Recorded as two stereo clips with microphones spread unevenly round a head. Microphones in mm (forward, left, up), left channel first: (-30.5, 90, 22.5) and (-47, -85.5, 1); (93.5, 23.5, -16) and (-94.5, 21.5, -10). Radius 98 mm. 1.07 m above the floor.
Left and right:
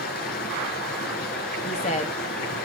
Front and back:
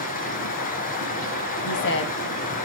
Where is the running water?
45° left, 2.5 m.